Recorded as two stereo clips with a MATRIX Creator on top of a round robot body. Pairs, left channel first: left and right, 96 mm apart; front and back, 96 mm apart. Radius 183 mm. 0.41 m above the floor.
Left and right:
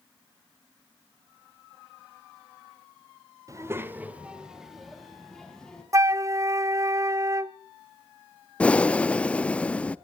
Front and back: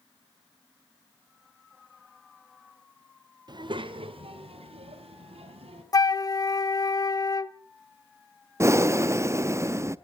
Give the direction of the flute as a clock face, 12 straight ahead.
1 o'clock.